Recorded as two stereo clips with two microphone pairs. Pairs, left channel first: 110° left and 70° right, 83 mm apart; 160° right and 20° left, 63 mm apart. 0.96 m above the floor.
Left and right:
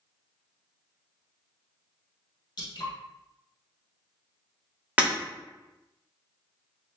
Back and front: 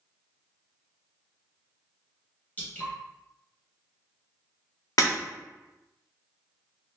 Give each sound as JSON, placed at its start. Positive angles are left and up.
{"t": 2.6, "sound": "dripping", "azimuth_deg": 135, "distance_m": 1.4}
{"t": 5.0, "sound": "breaking glass", "azimuth_deg": -145, "distance_m": 1.3}